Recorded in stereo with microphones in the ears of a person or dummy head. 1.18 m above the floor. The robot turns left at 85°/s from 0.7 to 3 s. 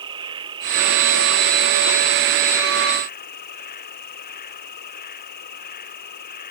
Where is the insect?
30° right; by 6.5 s 135° left.